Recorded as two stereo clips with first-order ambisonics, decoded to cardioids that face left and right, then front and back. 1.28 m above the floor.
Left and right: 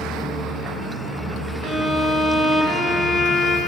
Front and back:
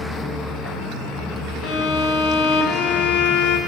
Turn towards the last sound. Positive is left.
turn(degrees=5)